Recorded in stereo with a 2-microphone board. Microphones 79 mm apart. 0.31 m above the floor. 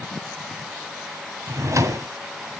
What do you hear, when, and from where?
1.5 s a drawer: 45° right (ahead or behind), 1.4 m